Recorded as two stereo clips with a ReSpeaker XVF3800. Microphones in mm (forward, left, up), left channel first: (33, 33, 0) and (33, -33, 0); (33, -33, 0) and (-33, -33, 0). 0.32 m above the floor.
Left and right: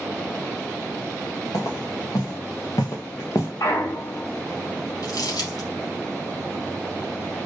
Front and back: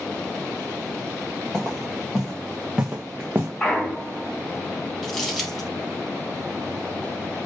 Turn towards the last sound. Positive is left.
turn(degrees=85)